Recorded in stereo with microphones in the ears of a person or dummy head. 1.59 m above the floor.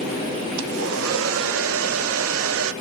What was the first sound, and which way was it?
A hair dryer, 80° right.